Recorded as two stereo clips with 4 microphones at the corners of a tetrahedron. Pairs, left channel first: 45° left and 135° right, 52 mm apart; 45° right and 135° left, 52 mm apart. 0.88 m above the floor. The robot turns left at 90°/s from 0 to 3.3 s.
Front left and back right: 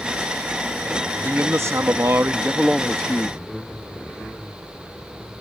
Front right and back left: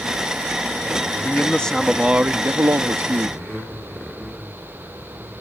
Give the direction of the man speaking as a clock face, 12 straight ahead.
3 o'clock.